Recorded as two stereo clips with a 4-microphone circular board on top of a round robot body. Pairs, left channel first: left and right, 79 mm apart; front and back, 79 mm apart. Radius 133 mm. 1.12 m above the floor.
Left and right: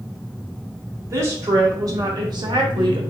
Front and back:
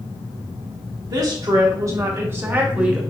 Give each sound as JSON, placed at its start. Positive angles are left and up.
{"t": 1.1, "sound": "a woman speaking", "azimuth_deg": -145, "distance_m": 1.5}